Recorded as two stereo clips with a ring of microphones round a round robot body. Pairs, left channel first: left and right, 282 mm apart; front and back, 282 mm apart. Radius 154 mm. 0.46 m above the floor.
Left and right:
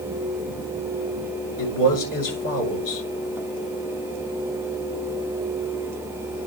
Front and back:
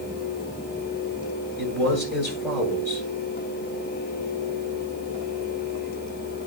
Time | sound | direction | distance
1.6 | a man speaking | 85° left | 8 m